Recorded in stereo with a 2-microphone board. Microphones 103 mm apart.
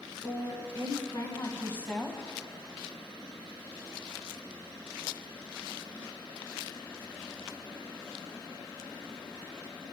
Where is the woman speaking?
60° left (ahead or behind), 2.5 m; by 2.2 s centre (ahead or behind), 1.3 m.